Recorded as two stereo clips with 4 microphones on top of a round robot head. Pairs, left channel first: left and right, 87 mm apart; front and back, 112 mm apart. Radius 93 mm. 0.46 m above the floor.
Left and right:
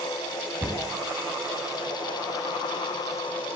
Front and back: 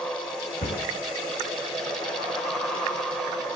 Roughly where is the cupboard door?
Ahead right.